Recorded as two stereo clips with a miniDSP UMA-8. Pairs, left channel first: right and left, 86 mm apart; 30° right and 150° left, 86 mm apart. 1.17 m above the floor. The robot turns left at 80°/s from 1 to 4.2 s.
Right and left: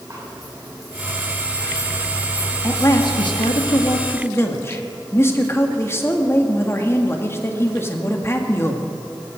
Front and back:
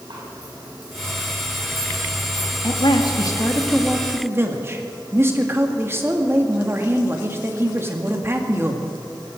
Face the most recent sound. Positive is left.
turn(degrees=-150)